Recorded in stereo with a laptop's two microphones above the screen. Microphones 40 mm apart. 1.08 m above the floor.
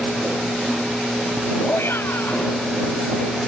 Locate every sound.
1.7 s a shout: 75° left (ahead or behind)